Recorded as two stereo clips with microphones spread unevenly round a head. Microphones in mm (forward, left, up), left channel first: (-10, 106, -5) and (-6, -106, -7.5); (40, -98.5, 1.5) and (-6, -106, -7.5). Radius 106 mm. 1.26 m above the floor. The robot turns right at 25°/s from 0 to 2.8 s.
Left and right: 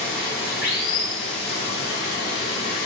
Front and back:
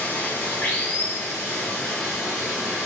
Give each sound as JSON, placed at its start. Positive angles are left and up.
{"t": 0.0, "sound": "running water", "azimuth_deg": 45, "distance_m": 1.1}